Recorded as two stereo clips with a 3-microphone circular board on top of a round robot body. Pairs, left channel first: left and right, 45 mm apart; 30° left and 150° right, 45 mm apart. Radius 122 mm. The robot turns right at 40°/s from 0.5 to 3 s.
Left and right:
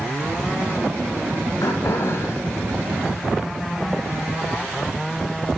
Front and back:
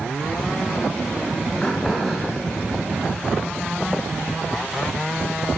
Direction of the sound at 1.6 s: 100° left.